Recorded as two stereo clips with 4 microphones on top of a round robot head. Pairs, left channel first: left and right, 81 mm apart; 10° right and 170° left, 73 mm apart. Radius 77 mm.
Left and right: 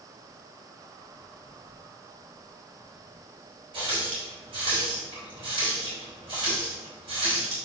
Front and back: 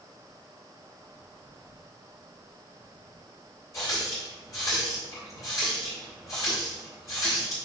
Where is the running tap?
65° right, 3 m.